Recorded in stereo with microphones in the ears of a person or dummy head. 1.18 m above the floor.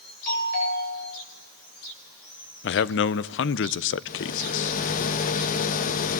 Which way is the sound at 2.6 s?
60° left (ahead or behind).